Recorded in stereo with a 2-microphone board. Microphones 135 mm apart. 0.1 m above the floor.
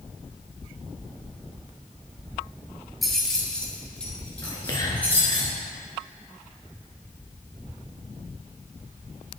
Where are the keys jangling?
Centre (ahead or behind), 1.2 m; by 5.4 s 10° left (ahead or behind), 3.5 m.